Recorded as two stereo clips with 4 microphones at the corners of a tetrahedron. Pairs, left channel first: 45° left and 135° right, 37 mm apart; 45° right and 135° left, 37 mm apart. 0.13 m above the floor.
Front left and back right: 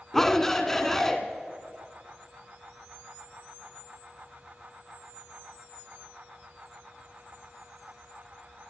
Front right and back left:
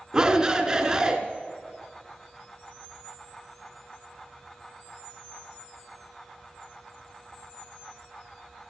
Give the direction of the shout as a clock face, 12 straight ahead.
8 o'clock.